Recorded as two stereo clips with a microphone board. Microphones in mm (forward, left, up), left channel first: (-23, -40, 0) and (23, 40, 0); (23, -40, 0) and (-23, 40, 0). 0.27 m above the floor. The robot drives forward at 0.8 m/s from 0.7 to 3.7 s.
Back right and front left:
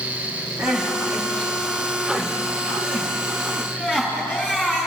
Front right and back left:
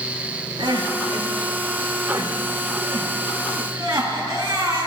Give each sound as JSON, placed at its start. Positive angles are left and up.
{"t": 0.6, "sound": "crying", "azimuth_deg": 140, "distance_m": 1.6}